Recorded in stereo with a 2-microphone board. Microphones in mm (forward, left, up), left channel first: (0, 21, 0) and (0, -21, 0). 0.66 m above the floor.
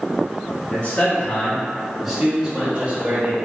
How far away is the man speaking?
About 1.7 m.